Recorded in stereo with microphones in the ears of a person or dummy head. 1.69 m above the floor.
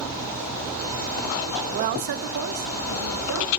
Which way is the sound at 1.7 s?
30° right (ahead or behind).